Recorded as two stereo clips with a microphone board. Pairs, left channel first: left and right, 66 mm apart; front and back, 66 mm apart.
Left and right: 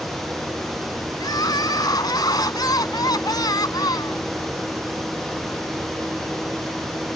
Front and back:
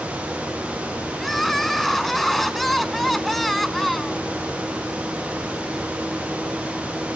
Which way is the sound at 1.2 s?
90° left.